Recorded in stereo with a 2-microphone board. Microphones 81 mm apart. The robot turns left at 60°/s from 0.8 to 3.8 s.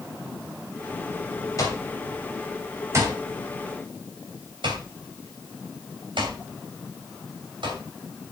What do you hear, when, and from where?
1.6 s an alarm clock: 45° left (ahead or behind), 3.5 m; by 7.8 s 85° right, 3.5 m